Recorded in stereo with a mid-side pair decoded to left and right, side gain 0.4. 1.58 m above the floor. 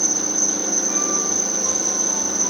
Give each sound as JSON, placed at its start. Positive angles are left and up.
{"t": 0.0, "sound": "an insect", "azimuth_deg": -5}